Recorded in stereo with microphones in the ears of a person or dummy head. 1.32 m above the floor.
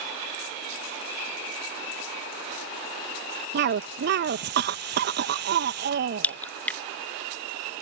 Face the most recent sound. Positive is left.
turn(degrees=10)  # may be behind; listen again after turning